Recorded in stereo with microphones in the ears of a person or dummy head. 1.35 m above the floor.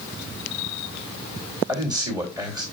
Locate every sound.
1.7 s a man speaking: 25° right (ahead or behind), 3 m